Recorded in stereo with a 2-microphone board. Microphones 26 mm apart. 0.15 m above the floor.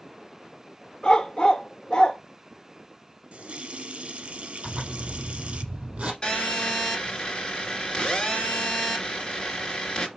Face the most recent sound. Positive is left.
turn(degrees=35)  # may be behind; listen again after turning